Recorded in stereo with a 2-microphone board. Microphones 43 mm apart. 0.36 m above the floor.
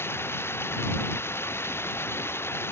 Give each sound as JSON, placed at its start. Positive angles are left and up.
{"t": 0.0, "sound": "running water", "side_deg": 70}